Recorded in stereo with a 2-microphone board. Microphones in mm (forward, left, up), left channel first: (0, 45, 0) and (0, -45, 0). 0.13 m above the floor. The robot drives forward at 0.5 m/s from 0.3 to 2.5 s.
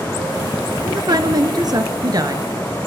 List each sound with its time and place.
0.8 s a woman speaking: 50° right (ahead or behind), 1.8 m; by 2.5 s 45° right (ahead or behind), 2.0 m